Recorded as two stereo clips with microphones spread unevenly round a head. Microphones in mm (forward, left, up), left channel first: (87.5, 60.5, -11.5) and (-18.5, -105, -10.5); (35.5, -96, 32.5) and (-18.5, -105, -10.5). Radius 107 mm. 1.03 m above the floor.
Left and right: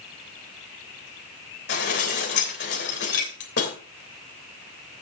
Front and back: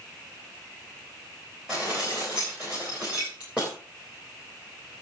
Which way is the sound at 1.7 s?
105° left.